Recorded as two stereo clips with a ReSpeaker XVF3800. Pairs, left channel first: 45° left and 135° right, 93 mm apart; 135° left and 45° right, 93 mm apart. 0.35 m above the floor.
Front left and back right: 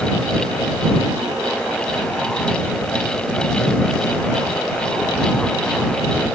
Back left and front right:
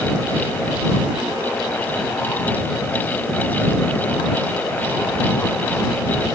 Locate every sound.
Only background noise.